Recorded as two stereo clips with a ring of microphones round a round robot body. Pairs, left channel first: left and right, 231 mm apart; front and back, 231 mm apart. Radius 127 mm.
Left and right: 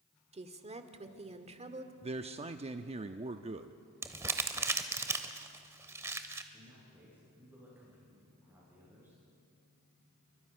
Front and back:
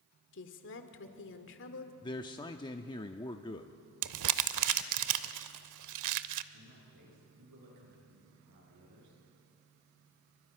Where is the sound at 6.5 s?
170° right, 9 m.